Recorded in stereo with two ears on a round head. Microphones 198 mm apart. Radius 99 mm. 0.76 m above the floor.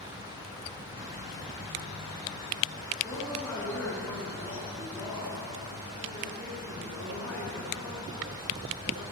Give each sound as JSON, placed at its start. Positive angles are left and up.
{"t": 3.0, "sound": "a woman speaking", "side_deg": 10, "distance_m": 9.5}